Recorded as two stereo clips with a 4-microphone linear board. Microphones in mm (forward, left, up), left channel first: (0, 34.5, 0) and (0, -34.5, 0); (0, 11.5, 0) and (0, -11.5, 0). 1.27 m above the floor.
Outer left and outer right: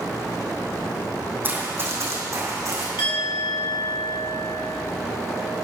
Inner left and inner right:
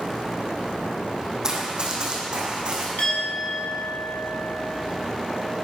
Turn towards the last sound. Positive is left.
turn(degrees=85)